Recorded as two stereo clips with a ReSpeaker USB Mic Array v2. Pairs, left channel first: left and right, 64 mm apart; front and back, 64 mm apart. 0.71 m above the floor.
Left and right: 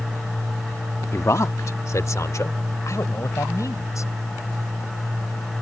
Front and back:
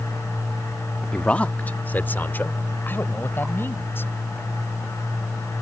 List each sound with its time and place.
1.1 s a man speaking: 70° left; by 4.1 s 55° left